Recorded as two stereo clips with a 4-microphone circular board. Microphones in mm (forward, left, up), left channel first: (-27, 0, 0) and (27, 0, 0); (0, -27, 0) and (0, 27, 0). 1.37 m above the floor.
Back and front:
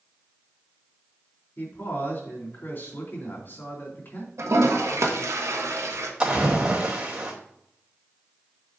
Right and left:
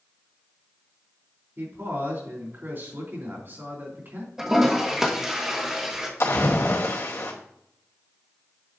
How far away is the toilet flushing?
About 1.5 m.